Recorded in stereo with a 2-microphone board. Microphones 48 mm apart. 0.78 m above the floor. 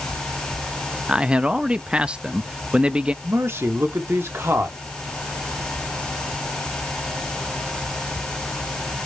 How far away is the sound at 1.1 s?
About 0.7 m.